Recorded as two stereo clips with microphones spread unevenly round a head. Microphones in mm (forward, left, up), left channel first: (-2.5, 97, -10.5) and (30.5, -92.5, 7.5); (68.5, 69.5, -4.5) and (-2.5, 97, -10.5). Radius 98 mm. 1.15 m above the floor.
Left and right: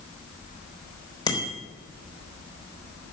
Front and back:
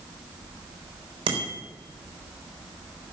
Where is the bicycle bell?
170° left, 3.5 m.